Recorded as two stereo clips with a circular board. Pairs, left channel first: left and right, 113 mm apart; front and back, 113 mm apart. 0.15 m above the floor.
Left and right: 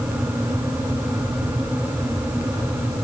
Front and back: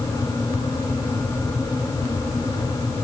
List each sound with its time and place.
Only background noise.